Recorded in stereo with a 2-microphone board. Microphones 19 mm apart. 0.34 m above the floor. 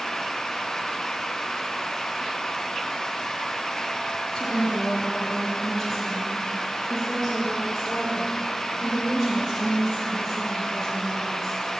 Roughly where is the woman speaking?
Left.